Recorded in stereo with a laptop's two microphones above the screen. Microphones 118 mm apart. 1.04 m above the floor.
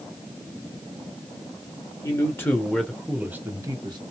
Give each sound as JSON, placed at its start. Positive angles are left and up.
{"t": 2.0, "sound": "a man speaking", "side_deg": 25, "distance_m": 1.5}